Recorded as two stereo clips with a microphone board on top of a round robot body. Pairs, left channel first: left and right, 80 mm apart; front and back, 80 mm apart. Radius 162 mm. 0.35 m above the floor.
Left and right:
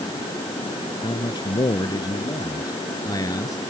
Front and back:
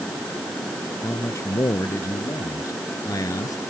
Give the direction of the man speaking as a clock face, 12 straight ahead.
10 o'clock.